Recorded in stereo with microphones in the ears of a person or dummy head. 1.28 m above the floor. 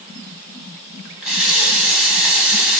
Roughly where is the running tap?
Centre.